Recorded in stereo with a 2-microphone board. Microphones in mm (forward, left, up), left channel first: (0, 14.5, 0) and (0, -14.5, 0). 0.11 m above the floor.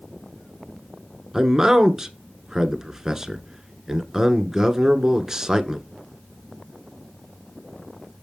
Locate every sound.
1.3 s a man speaking: 20° right (ahead or behind), 1.1 m